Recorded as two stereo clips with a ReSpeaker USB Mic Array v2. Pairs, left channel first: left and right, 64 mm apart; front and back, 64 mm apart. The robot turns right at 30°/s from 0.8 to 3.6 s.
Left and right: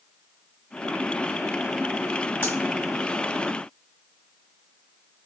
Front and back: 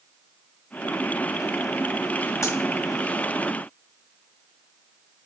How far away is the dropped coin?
About 1.6 m.